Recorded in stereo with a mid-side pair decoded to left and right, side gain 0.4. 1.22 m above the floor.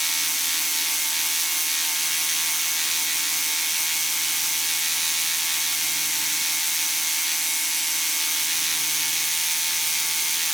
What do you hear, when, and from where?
0.0 s a machine running: 10° right, 0.7 m